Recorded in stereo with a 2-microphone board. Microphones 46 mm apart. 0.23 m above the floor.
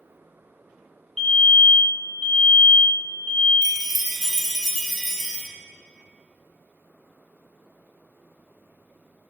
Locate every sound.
1.2 s a fire alarm: 10° left (ahead or behind), 1.9 m
3.6 s a chime: centre (ahead or behind), 0.6 m